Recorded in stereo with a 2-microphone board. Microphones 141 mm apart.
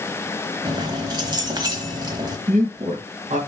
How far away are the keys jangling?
About 1.2 m.